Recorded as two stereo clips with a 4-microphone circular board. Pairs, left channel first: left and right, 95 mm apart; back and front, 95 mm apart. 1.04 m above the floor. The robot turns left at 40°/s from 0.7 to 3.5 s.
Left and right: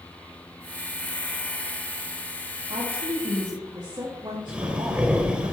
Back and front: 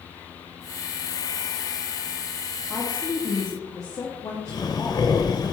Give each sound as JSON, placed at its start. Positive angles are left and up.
{"t": 2.7, "sound": "a woman speaking", "azimuth_deg": -100, "distance_m": 1.6}
{"t": 4.5, "sound": "breathing", "azimuth_deg": -165, "distance_m": 1.0}